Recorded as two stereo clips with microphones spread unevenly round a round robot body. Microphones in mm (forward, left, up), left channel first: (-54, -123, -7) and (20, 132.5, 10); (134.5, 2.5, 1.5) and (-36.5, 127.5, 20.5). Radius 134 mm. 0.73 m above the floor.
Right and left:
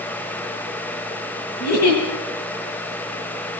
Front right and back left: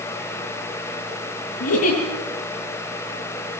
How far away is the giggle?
About 10 m.